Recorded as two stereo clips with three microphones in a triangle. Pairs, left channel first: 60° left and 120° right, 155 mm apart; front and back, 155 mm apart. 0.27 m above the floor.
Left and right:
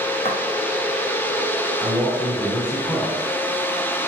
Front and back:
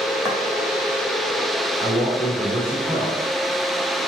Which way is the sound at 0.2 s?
105° left.